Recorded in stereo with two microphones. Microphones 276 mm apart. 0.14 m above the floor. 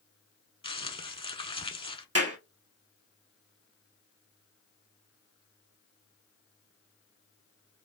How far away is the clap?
About 2.0 m.